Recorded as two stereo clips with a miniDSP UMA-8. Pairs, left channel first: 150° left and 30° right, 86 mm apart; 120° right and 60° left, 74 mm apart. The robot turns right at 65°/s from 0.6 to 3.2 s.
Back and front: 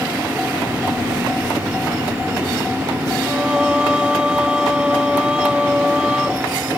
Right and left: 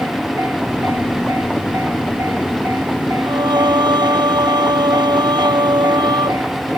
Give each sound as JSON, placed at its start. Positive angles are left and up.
{"t": 3.2, "sound": "singing", "azimuth_deg": 50}